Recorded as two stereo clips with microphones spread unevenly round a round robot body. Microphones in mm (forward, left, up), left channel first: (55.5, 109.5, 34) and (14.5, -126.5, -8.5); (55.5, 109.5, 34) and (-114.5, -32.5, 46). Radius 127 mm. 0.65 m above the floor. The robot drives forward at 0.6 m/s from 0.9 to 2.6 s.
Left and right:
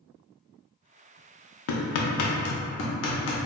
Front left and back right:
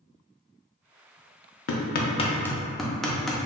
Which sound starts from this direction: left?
Hammering, at 1.7 s.